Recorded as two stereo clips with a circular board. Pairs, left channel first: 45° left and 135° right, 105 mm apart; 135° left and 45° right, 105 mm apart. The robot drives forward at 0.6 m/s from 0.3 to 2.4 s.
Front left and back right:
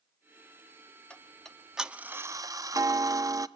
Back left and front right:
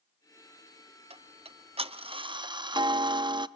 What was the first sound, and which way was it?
Ticking, 35° right.